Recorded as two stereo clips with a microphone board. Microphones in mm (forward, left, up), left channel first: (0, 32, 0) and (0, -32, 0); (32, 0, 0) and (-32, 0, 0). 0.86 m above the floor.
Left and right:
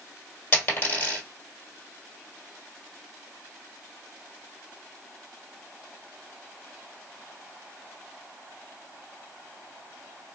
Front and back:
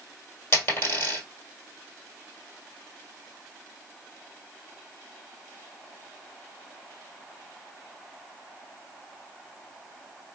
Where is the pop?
I don't hear a pop.